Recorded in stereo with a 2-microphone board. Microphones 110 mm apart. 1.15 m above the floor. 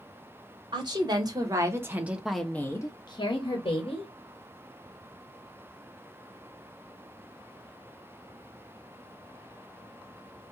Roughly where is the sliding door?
No sliding door in this recording.